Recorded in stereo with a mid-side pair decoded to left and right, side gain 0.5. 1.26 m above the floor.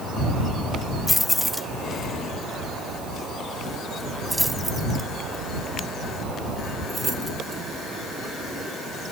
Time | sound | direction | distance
1.1 | keys jangling | 10° left | ?